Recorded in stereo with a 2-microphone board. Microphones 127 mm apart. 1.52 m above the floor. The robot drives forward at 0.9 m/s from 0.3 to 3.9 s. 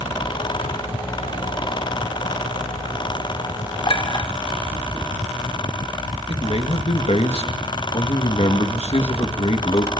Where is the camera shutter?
No camera shutter in this recording.